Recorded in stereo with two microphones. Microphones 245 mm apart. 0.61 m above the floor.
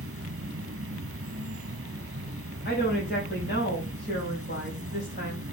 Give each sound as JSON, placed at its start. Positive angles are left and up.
{"t": 0.0, "sound": "an insect", "side_deg": -60, "distance_m": 0.9}
{"t": 2.6, "sound": "a woman speaking", "side_deg": 45, "distance_m": 3.5}